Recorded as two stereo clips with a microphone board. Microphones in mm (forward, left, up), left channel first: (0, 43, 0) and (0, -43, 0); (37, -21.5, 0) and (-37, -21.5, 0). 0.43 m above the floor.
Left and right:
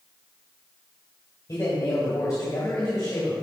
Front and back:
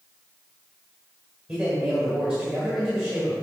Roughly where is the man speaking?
Left.